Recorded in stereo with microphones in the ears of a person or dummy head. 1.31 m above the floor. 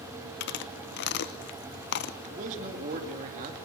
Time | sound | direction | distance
0.4 | chewing | 60° left (ahead or behind) | 0.9 m
2.3 | a man speaking | 45° right (ahead or behind) | 2.5 m